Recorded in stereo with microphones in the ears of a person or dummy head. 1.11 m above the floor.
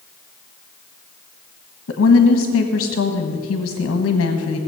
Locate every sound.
1.9 s a woman speaking: 70° left (ahead or behind), 1.4 m